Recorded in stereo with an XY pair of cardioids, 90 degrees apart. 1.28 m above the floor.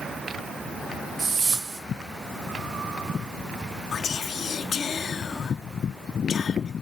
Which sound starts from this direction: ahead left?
Whispering, at 3.9 s.